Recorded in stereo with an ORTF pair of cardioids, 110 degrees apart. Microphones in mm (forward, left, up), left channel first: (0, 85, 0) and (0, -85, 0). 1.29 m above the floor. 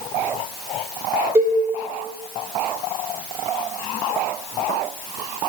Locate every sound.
1.4 s a cowbell: 15° right, 0.7 m